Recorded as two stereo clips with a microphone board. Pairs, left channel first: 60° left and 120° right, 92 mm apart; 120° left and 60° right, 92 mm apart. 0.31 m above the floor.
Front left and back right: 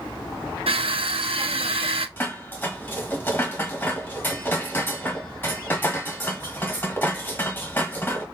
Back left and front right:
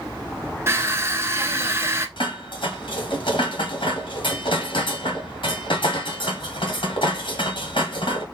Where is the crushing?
120° right, 0.7 m.